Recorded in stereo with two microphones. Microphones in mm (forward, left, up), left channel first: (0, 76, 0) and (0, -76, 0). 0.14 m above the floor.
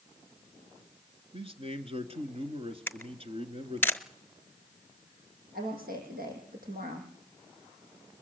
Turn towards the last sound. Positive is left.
turn(degrees=-75)  # may be behind; listen again after turning